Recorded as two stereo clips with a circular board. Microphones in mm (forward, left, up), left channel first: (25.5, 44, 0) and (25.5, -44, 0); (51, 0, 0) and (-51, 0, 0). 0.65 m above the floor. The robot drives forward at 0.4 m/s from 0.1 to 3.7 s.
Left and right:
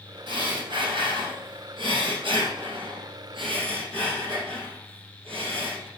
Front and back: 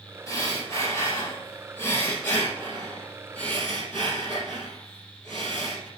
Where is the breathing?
60° right, 3.5 m; by 5.9 s 85° right, 3 m.